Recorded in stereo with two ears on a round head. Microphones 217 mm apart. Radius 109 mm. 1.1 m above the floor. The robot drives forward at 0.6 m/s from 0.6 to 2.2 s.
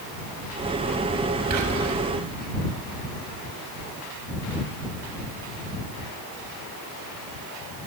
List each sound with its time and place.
1.5 s whispering: 75° right (ahead or behind), 6.5 m; by 2.0 s 80° right, 6.5 m